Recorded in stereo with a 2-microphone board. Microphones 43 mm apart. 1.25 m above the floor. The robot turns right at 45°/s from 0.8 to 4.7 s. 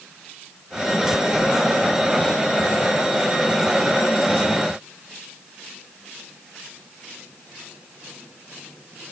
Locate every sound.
Only background noise.